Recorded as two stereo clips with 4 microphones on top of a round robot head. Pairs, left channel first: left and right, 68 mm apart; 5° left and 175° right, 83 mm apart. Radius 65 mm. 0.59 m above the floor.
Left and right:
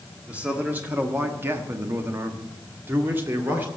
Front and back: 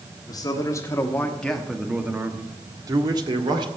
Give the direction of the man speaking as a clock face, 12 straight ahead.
1 o'clock.